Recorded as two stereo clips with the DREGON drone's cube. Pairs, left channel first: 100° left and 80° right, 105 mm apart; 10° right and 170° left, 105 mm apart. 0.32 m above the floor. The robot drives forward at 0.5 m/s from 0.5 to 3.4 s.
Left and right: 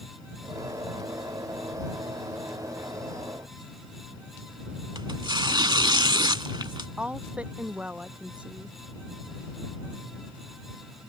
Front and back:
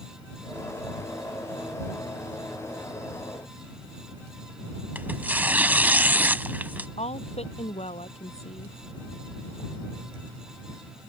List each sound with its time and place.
5.0 s tearing paper: 115° right
7.0 s a woman speaking: straight ahead